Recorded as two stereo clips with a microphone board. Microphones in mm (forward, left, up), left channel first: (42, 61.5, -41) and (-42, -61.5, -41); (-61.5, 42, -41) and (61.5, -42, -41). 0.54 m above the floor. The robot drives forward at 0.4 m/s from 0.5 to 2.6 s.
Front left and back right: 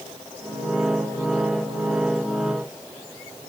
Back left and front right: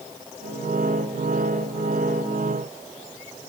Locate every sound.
Only background noise.